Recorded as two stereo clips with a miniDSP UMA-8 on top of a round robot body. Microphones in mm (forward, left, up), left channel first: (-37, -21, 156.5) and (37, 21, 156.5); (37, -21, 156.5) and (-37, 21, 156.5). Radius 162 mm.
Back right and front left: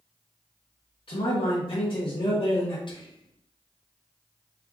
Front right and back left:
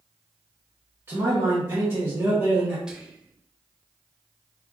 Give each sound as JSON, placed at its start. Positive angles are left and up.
{"t": 1.1, "sound": "a man speaking", "azimuth_deg": -150, "distance_m": 1.1}
{"t": 2.9, "sound": "whispering", "azimuth_deg": -130, "distance_m": 1.0}